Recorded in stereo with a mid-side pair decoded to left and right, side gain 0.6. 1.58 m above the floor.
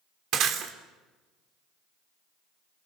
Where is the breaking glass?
60° right, 3 m.